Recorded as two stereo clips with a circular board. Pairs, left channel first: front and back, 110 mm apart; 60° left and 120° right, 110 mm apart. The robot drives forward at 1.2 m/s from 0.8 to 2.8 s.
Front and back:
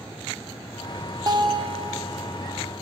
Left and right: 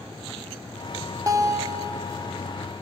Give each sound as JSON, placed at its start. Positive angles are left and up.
{"t": 1.3, "sound": "a guitar", "azimuth_deg": -160, "distance_m": 0.8}